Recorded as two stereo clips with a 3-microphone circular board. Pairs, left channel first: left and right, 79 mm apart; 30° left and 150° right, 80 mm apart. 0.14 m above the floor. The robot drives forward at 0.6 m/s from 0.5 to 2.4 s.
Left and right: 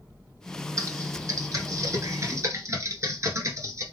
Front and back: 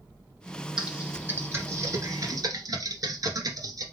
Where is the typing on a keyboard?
75° right, 1.2 m; by 3.8 s 130° right, 1.3 m.